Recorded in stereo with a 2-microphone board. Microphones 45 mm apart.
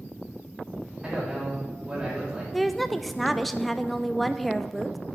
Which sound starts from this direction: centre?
A woman speaking, at 2.5 s.